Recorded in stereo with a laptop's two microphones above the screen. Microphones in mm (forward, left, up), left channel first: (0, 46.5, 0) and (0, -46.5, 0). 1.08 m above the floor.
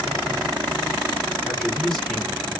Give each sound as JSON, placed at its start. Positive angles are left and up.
{"t": 1.4, "sound": "a man speaking", "side_deg": 5, "distance_m": 1.4}